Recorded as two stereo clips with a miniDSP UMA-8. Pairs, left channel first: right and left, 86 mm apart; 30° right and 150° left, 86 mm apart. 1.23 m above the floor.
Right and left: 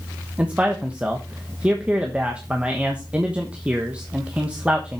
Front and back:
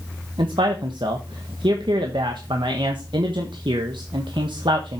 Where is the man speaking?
165° left, 1.3 m.